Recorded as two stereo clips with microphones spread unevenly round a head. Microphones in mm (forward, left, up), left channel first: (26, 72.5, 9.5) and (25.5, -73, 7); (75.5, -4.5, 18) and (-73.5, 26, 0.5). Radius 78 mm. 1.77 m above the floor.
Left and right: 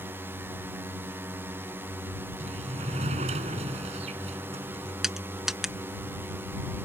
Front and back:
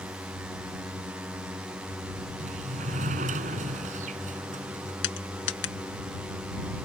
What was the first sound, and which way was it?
A drone, 135° right.